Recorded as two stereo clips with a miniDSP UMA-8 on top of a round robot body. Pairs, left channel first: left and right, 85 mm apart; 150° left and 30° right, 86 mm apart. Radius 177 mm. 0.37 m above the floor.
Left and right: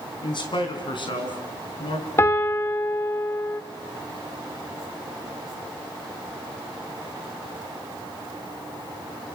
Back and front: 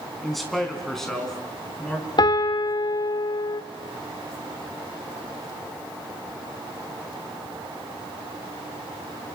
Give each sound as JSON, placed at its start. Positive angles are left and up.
{"t": 0.2, "sound": "a man speaking", "azimuth_deg": 60, "distance_m": 4.0}
{"t": 2.2, "sound": "a piano", "azimuth_deg": 145, "distance_m": 1.4}